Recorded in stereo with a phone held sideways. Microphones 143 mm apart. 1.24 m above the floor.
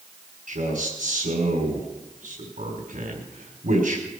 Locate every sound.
0.5 s a man speaking: 80° right, 4 m